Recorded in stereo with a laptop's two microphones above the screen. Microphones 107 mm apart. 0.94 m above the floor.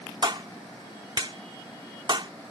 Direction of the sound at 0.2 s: 50° right (ahead or behind).